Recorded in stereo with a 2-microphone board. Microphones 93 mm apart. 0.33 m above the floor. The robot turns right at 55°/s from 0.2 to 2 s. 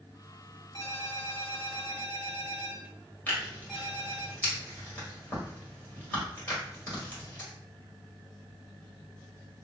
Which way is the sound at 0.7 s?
110° left.